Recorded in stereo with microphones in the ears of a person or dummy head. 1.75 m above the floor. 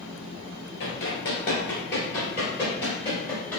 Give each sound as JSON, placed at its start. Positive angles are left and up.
{"t": 0.8, "sound": "running footsteps", "side_deg": 20, "distance_m": 1.8}